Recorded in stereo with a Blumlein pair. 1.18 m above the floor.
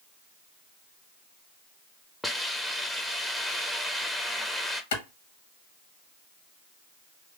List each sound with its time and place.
2.2 s a hiss: 5° left, 0.7 m
4.9 s a clap: 60° left, 1.2 m